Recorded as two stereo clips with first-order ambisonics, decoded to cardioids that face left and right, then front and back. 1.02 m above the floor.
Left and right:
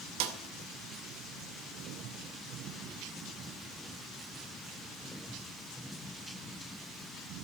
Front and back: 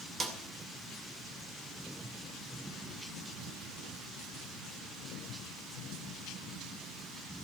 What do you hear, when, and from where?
0.2 s a snare drum: 105° right, 2 m